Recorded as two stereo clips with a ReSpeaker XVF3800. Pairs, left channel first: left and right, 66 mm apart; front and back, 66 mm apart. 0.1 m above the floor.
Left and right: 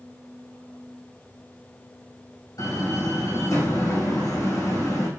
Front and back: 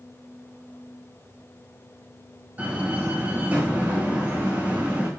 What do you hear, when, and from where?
2.6 s a door slam: 110° left, 5 m